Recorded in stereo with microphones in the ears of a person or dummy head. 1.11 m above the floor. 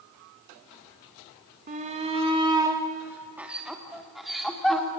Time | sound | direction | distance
1.7 | a shout | 40° right (ahead or behind) | 1.5 m